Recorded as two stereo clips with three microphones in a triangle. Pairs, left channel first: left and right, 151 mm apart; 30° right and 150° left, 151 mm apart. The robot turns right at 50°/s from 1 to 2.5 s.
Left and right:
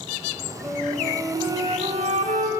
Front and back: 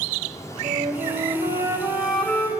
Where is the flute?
175° right, 2.5 m; by 2.5 s 100° right, 2.5 m.